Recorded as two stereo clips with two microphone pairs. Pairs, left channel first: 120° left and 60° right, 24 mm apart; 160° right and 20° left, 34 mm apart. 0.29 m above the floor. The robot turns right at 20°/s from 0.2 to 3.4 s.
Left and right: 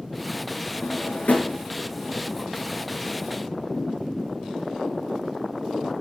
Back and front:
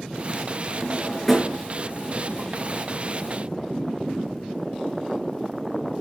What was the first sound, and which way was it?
A drawer, 105° left.